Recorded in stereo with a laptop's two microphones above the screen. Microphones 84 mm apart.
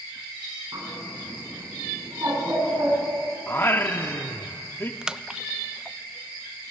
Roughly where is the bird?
Right.